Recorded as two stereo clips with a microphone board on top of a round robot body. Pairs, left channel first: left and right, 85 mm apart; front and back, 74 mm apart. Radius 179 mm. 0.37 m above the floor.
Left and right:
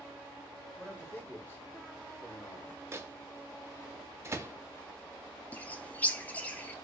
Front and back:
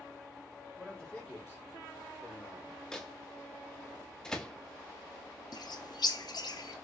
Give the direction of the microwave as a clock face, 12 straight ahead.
3 o'clock.